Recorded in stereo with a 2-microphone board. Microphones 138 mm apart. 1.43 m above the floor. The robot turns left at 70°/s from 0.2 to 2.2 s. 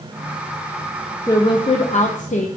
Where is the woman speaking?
155° left, 0.6 m; by 2.5 s 90° left, 0.6 m.